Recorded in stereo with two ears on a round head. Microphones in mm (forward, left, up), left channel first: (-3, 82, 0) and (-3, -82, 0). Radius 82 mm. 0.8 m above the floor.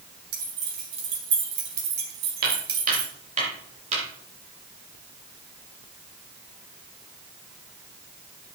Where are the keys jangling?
60° right (ahead or behind), 6.5 m; by 3.1 s 55° right (ahead or behind), 2.5 m.